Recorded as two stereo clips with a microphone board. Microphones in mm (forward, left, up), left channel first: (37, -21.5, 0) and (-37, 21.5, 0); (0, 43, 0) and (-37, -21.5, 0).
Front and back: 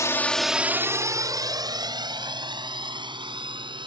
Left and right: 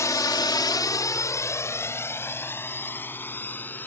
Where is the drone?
20° left; by 3.9 s 125° left.